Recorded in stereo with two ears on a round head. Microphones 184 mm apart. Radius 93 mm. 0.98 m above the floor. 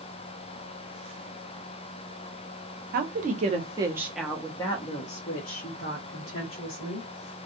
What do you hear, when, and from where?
2.9 s a woman speaking: 45° right (ahead or behind), 0.9 m; by 7.1 s 60° left (ahead or behind), 1.6 m